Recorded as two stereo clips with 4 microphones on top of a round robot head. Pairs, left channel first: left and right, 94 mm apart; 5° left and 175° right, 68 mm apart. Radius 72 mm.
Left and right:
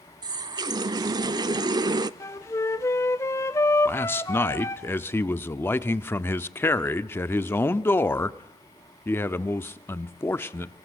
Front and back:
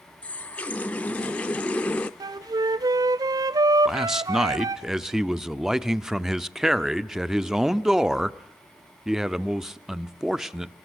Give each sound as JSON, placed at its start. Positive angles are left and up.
{"t": 0.2, "sound": "a running tap", "azimuth_deg": -60, "distance_m": 0.6}
{"t": 2.2, "sound": "a flute", "azimuth_deg": 155, "distance_m": 0.7}
{"t": 3.9, "sound": "a man speaking", "azimuth_deg": 110, "distance_m": 0.8}